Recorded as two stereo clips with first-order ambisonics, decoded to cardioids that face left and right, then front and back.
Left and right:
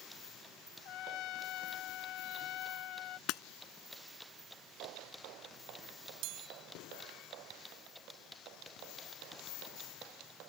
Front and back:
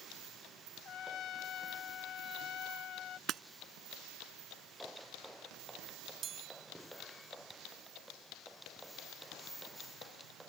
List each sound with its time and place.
0.8 s a trumpet: 50° left
3.3 s breaking glass: 125° left
6.2 s a chime: 115° right